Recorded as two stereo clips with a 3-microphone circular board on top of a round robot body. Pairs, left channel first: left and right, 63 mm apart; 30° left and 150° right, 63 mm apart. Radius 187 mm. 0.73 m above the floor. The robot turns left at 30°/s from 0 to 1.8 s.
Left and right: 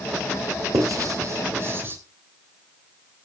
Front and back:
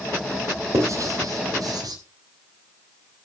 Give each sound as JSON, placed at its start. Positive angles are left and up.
{"t": 0.7, "sound": "writing", "azimuth_deg": -110, "distance_m": 3.0}